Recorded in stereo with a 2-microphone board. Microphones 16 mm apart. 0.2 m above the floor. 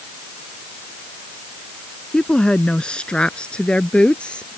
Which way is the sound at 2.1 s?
55° left (ahead or behind).